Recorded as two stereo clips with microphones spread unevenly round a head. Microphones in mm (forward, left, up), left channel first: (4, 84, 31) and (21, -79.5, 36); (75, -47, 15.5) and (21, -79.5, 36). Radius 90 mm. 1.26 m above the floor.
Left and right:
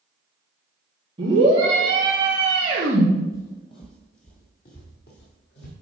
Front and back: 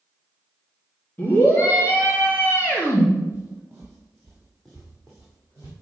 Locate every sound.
1.2 s a scream: 20° right, 3.5 m
3.3 s footsteps: 165° left, 1.8 m; by 5.7 s 115° left, 3 m